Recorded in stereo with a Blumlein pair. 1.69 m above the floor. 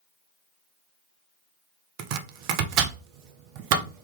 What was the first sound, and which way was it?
Chopping, 45° right.